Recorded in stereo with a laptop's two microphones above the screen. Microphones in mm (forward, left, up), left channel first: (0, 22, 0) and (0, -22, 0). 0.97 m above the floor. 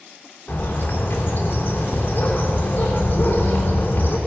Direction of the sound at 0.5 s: 50° left (ahead or behind).